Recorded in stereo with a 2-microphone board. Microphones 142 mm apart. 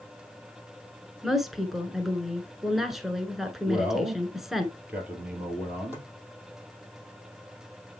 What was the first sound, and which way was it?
A woman speaking, centre (ahead or behind).